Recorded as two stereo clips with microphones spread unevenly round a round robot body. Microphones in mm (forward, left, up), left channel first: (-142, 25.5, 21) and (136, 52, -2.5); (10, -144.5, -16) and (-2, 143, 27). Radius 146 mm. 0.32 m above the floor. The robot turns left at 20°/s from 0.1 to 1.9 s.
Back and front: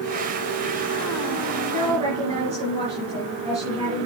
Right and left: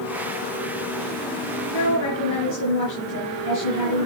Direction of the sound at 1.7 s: 60° right.